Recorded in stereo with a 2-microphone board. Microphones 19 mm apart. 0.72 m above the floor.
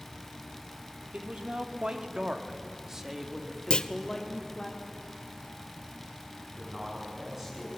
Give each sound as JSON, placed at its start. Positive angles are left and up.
{"t": 1.1, "sound": "a man speaking", "side_deg": -65, "distance_m": 2.5}
{"t": 3.7, "sound": "a clunk", "side_deg": 55, "distance_m": 0.8}
{"t": 6.6, "sound": "a man speaking", "side_deg": -15, "distance_m": 7.5}